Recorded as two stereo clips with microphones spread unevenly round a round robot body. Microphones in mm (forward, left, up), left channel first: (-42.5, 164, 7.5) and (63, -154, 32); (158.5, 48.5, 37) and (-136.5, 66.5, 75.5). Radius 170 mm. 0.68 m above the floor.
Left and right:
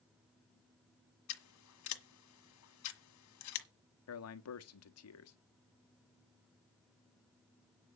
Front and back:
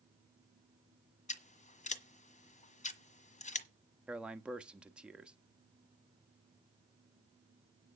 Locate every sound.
1.3 s scissors: 65° left, 1.5 m
4.1 s a man speaking: 85° left, 1.2 m